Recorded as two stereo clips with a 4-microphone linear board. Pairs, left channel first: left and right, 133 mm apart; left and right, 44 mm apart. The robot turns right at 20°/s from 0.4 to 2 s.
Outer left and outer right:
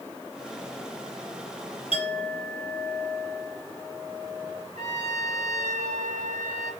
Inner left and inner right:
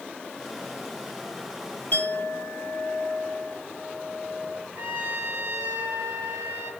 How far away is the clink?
About 3 m.